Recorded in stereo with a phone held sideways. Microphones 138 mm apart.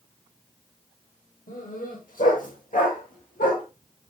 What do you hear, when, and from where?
1.5 s a dog barking: 75° left (ahead or behind), 6.5 m; by 3.6 s 80° left, 9 m